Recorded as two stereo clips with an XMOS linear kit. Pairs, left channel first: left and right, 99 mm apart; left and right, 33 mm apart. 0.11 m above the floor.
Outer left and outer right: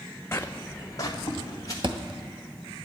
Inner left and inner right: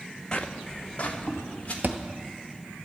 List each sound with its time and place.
0.3 s footsteps: 25° left (ahead or behind), 0.5 m; by 1.7 s 40° left (ahead or behind), 2.5 m
1.8 s a thud: 55° right (ahead or behind), 0.8 m